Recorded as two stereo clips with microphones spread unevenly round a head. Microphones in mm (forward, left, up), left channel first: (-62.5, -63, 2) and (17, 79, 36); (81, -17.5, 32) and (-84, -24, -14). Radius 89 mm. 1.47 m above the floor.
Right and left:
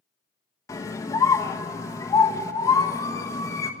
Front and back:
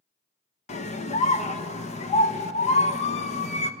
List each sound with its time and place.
0.7 s a scream: 45° right, 1.3 m